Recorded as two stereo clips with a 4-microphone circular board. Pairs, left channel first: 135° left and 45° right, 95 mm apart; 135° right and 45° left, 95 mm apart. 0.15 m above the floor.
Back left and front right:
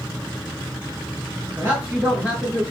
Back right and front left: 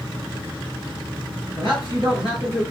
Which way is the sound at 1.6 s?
105° right.